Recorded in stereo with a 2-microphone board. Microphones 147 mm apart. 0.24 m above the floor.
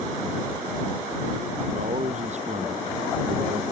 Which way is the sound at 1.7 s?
50° right (ahead or behind).